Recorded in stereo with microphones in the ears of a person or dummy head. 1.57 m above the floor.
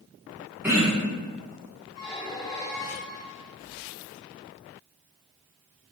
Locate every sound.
0.6 s throat clearing: 5° right (ahead or behind), 0.9 m
2.0 s a squeak: 20° left (ahead or behind), 1.1 m